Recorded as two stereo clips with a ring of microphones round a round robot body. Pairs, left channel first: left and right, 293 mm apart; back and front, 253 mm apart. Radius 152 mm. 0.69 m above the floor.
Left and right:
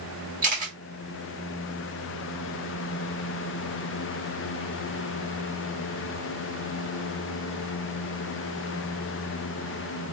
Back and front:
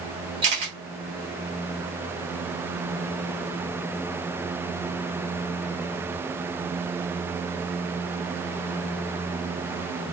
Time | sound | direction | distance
0.4 | a camera shutter | 35° right | 1.5 m